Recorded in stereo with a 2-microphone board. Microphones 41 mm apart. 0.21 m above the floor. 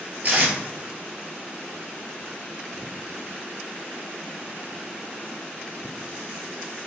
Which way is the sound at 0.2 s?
40° right (ahead or behind).